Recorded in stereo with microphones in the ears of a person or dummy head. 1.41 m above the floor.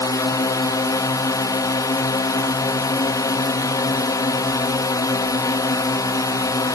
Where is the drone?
20° left (ahead or behind).